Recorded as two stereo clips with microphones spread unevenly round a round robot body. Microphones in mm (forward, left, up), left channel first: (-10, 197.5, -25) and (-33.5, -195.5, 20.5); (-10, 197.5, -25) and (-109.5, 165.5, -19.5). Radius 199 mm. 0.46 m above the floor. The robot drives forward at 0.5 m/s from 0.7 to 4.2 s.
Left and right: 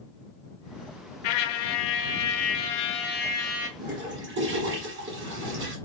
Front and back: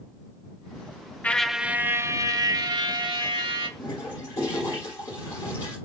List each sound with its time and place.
1.2 s a trumpet: 95° left, 0.6 m; by 3.7 s 155° left, 1.4 m
3.8 s a toilet flushing: 30° right, 1.9 m; by 5.8 s 35° right, 1.8 m